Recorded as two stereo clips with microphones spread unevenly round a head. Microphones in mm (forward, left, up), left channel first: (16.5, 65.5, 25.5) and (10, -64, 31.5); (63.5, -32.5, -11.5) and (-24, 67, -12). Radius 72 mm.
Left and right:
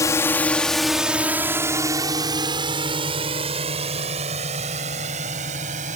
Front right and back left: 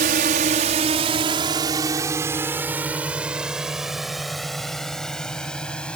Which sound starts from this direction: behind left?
A drone, at 0.0 s.